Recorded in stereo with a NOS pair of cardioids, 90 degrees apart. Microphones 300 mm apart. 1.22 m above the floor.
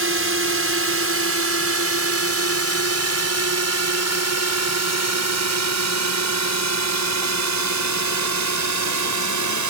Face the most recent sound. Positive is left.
turn(degrees=-75)